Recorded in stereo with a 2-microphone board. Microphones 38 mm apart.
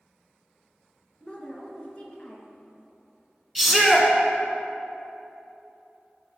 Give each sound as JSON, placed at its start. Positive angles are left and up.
{"t": 1.2, "sound": "a woman speaking", "side_deg": 30, "distance_m": 1.4}
{"t": 3.5, "sound": "a shout", "side_deg": -5, "distance_m": 1.0}